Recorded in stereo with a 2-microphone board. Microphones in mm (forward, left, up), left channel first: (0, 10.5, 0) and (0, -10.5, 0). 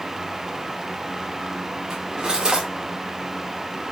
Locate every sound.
1.9 s cutlery clinking: 35° right (ahead or behind), 2.5 m